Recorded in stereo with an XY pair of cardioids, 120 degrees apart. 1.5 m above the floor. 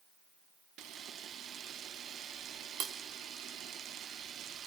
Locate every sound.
0.8 s a camera shutter: 65° right, 1.2 m